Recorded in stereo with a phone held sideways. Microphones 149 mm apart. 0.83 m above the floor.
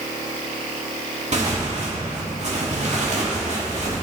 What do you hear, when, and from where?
1.3 s tearing paper: 50° right (ahead or behind), 1.8 m